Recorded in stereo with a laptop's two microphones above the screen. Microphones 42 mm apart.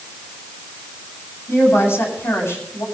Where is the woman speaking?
75° left (ahead or behind), 7.5 m.